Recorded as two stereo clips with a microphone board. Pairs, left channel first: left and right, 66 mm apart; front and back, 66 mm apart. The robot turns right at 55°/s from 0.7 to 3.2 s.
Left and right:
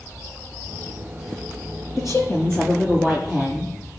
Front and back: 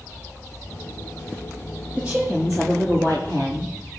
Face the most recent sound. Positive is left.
turn(degrees=175)